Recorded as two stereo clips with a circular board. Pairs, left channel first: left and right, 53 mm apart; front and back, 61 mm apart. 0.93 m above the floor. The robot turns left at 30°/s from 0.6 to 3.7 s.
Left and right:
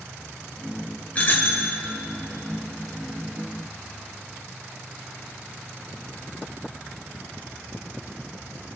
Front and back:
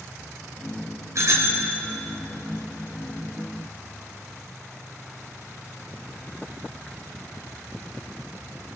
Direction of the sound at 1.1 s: 150° left.